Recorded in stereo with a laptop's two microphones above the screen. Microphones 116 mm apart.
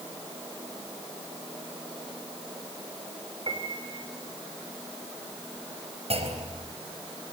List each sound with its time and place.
3.5 s a piano: 45° right (ahead or behind), 3.5 m
6.1 s a clunk: 60° right (ahead or behind), 4 m